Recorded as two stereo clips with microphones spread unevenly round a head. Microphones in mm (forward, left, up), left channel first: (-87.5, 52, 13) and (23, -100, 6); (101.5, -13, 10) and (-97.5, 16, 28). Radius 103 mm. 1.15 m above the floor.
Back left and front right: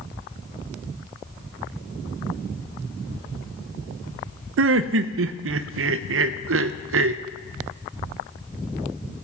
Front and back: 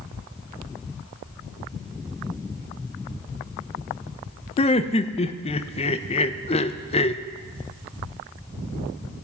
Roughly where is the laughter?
Right.